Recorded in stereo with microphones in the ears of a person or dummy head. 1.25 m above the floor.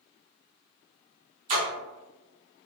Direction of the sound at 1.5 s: 35° right (ahead or behind).